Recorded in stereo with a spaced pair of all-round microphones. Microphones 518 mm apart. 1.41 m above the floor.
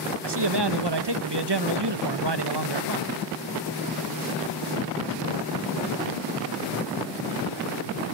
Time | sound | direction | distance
0.2 | a man speaking | 50° right (ahead or behind) | 1.1 m